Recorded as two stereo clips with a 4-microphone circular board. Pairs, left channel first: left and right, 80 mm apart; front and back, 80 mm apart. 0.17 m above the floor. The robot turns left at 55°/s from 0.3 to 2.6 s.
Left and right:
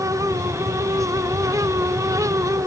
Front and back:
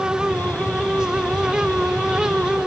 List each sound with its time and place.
Only background noise.